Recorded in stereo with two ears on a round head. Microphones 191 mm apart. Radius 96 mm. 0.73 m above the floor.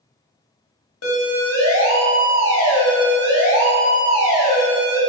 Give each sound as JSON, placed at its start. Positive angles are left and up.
{"t": 1.0, "sound": "a siren", "side_deg": 75, "distance_m": 6.5}